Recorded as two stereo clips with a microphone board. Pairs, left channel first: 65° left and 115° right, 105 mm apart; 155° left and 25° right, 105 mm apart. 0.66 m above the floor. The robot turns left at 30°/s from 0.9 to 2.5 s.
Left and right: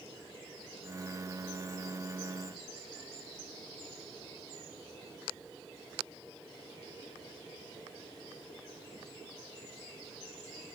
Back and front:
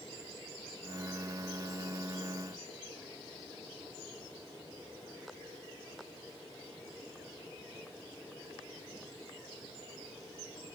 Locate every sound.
Only background noise.